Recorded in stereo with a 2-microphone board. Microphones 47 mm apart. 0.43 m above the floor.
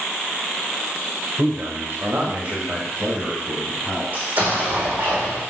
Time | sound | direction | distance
1.4 | a man speaking | 60° right (ahead or behind) | 1.3 m
4.1 | an explosion | 30° right (ahead or behind) | 3.5 m